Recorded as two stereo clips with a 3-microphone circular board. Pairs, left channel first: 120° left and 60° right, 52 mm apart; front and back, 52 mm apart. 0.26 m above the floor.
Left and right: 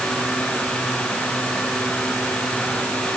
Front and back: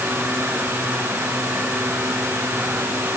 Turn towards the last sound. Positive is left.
No sound to turn to.